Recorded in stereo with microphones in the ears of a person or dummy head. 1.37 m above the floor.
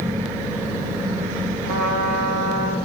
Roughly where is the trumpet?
Right.